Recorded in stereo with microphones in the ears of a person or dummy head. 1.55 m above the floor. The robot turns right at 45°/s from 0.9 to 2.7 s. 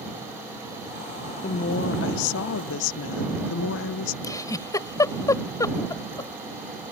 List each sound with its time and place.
1.4 s a woman speaking: 40° left; by 4.1 s 95° left
4.2 s a giggle: 25° left (ahead or behind)